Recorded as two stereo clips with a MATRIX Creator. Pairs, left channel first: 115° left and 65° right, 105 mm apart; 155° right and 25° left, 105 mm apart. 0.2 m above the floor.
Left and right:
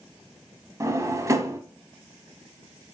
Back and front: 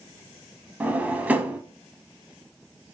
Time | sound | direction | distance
0.8 | a drawer | 40° right | 0.5 m